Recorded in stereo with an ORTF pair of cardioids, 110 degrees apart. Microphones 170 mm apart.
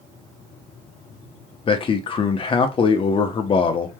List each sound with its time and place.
1.7 s a man speaking: 30° left, 0.7 m